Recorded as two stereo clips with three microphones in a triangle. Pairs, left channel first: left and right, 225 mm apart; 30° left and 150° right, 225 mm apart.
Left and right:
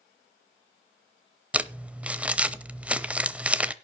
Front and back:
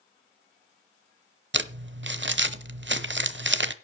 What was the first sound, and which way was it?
Crumpling, 175° right.